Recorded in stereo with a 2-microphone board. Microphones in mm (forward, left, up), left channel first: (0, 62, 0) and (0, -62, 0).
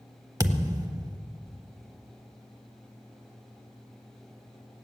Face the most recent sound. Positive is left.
turn(degrees=-30)  # may be behind; listen again after turning